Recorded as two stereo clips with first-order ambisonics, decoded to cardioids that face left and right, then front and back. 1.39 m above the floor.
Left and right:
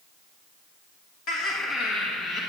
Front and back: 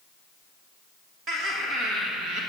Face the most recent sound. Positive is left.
turn(degrees=155)